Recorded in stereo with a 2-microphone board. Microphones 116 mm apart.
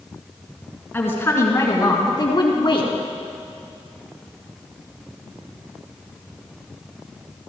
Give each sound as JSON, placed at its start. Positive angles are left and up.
{"t": 0.9, "sound": "a woman speaking", "side_deg": 20, "distance_m": 2.5}